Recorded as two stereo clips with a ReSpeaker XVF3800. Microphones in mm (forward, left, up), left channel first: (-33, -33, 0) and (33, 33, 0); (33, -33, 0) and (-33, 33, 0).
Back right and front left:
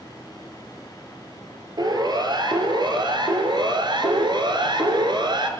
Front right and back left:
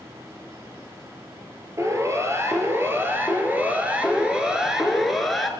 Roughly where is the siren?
Left.